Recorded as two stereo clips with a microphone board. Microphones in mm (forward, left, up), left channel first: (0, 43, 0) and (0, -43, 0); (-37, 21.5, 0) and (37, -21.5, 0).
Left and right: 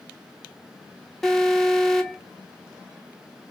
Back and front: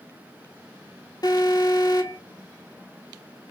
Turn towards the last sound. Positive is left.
turn(degrees=180)